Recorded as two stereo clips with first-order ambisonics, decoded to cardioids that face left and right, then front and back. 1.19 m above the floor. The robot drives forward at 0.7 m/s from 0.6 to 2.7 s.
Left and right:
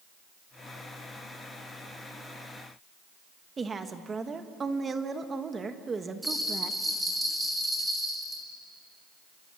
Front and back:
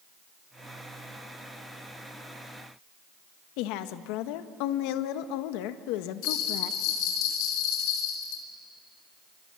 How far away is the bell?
About 3 m.